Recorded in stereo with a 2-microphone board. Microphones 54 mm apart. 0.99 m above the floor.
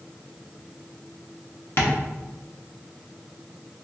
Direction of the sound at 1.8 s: 50° left (ahead or behind).